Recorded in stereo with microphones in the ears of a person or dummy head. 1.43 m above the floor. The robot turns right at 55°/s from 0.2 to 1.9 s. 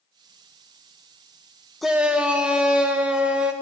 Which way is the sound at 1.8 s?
5° right (ahead or behind).